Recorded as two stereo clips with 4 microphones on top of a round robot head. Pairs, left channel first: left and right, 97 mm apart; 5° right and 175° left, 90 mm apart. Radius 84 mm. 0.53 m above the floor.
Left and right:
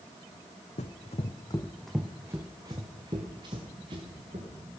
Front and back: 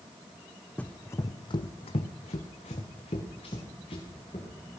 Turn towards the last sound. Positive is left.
turn(degrees=-45)